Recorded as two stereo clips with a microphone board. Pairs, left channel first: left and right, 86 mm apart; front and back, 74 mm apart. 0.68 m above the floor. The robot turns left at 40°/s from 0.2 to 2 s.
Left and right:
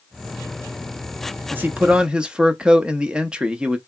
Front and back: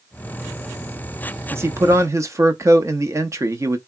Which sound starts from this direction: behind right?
A man speaking, at 1.5 s.